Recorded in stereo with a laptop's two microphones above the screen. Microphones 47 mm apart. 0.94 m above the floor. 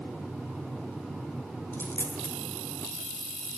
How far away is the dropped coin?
About 1.1 m.